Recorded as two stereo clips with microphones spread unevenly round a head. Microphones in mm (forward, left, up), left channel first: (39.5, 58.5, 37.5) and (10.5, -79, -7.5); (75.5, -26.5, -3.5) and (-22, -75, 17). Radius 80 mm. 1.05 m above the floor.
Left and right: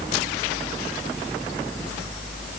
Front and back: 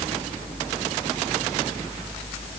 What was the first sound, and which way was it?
Only background noise.